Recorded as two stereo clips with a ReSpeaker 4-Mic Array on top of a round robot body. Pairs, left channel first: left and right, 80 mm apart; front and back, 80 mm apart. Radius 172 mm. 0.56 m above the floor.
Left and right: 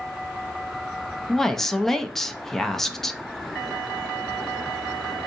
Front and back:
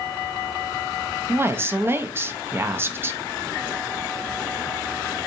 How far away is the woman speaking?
About 0.6 m.